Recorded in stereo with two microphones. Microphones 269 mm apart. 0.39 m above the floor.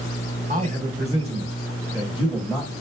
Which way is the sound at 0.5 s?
30° right (ahead or behind).